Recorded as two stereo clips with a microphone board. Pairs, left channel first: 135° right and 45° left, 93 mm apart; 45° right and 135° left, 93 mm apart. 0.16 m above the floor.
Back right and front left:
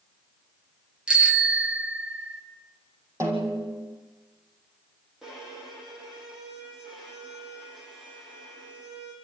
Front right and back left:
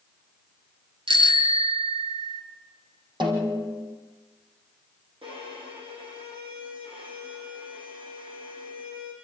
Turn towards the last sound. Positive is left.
turn(degrees=130)